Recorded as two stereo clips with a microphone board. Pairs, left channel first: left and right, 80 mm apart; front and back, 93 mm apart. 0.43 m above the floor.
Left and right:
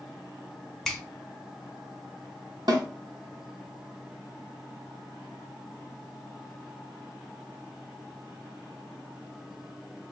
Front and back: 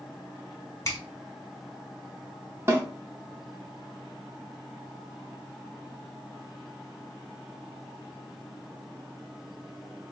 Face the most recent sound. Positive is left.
turn(degrees=-120)